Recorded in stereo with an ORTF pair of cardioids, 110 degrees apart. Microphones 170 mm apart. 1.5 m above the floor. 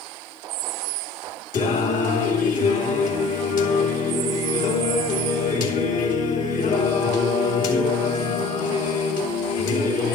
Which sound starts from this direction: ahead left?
Singing, at 1.5 s.